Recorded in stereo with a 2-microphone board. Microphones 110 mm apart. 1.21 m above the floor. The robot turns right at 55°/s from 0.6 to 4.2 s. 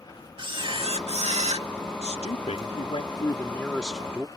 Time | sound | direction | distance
0.4 | a camera shutter | 130° right | ?
2.0 | a man speaking | 75° left | ?